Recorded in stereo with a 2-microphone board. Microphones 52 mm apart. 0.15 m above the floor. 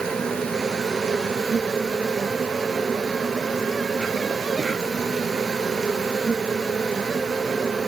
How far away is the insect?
About 1.0 m.